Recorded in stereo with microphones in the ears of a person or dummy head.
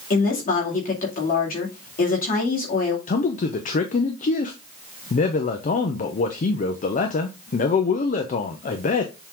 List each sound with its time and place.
0.1 s a woman speaking: 45° left (ahead or behind), 2.5 m
3.1 s a man speaking: 35° left (ahead or behind), 0.7 m